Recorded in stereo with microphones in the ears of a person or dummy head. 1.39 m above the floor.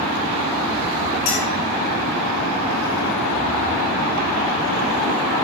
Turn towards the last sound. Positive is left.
turn(degrees=60)  # may be behind; listen again after turning